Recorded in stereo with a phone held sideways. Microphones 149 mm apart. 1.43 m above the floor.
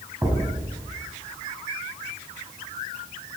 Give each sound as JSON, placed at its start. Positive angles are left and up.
{"t": 0.2, "sound": "a thud", "side_deg": -15, "distance_m": 3.5}